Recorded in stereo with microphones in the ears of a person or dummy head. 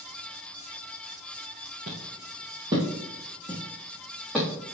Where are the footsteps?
40° right (ahead or behind), 2.5 m; by 4.5 s 10° right (ahead or behind), 4.5 m.